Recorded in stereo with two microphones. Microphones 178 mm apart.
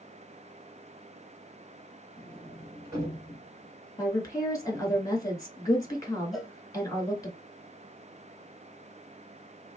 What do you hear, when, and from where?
2.2 s a sliding door: 20° right (ahead or behind), 1.6 m
4.0 s a woman speaking: 20° left (ahead or behind), 1.1 m
6.3 s a cowbell: centre (ahead or behind), 0.8 m